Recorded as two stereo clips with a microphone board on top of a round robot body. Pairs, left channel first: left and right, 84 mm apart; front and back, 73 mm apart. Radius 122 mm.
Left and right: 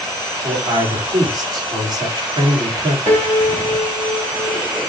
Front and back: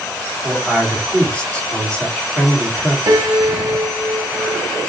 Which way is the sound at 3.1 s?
145° right.